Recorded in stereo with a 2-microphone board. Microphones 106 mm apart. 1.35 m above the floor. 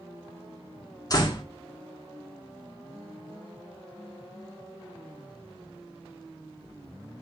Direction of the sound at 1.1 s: 35° left (ahead or behind).